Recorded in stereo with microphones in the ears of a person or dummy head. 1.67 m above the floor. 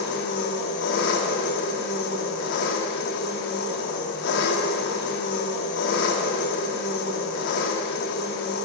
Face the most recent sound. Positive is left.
turn(degrees=65)  # may be behind; listen again after turning